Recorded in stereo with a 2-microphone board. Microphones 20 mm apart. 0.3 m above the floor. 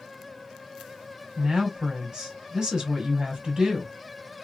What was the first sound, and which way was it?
A woman speaking, 35° right (ahead or behind).